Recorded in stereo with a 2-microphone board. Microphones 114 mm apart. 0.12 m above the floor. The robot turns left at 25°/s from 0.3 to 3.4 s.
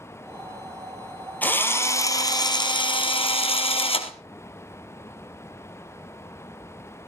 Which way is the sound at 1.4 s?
165° left.